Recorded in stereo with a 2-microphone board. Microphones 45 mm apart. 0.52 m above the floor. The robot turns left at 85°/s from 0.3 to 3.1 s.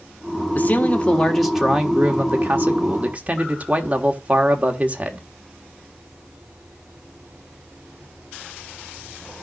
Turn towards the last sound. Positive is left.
turn(degrees=-140)